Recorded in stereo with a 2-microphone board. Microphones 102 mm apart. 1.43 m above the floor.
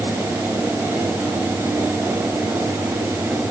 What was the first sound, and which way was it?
Only background noise.